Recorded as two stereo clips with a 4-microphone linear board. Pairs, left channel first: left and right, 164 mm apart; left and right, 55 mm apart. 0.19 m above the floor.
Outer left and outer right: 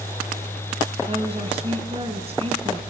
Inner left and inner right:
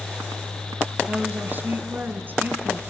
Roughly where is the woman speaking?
Right.